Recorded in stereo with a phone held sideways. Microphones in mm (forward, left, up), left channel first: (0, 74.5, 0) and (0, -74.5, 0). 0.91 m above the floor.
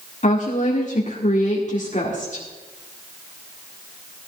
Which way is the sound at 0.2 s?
55° left (ahead or behind).